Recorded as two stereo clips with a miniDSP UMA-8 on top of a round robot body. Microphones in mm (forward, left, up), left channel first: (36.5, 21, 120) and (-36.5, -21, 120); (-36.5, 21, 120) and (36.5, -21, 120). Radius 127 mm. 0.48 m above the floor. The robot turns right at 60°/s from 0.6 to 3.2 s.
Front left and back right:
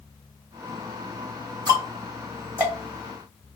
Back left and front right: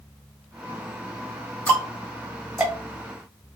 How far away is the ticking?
About 2 m.